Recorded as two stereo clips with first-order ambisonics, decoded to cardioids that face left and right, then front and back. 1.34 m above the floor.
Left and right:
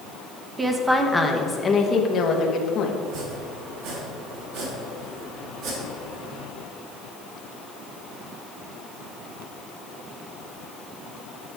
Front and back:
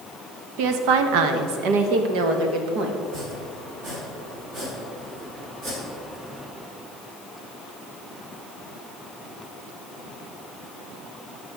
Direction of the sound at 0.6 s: 165° right.